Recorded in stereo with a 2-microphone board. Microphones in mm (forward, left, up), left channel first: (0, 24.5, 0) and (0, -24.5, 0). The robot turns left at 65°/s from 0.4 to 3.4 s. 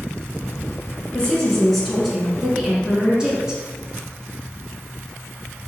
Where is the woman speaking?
15° left (ahead or behind), 1.1 m; by 3.6 s 20° right (ahead or behind), 1.1 m.